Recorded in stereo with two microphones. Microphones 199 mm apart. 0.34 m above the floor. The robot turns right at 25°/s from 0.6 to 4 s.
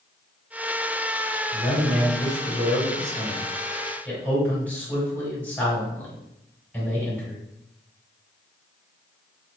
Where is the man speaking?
35° left (ahead or behind), 1.8 m; by 7.4 s 10° left (ahead or behind), 1.8 m.